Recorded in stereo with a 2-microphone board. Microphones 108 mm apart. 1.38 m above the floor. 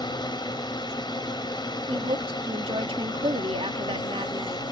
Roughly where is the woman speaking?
Right.